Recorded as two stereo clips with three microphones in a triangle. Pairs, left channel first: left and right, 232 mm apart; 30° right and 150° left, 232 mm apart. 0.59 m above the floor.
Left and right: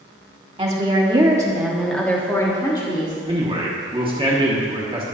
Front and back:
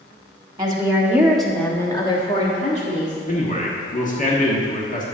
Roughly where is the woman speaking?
Behind right.